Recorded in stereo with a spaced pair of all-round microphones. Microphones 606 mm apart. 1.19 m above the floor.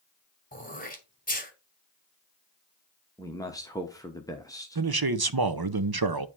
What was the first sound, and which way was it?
Throat clearing, 15° left (ahead or behind).